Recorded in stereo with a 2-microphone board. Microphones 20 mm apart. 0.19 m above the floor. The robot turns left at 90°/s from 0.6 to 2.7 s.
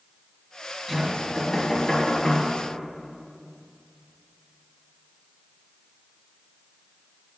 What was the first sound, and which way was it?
Knocking, 15° right (ahead or behind).